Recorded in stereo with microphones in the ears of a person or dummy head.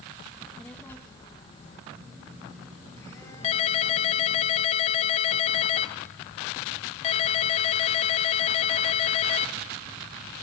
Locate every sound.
0.3 s a child speaking: centre (ahead or behind), 1.7 m; by 1.8 s 40° left (ahead or behind), 1.2 m
1.9 s a phone buzzing: 20° left (ahead or behind), 6.5 m
3.4 s a ringtone: 35° left (ahead or behind), 1.0 m